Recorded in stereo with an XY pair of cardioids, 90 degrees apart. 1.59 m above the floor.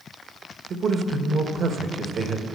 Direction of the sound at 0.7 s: 60° right.